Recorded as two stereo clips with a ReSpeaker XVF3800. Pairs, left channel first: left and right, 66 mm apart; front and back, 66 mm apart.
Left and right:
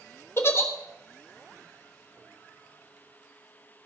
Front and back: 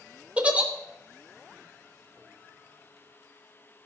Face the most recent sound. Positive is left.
turn(degrees=120)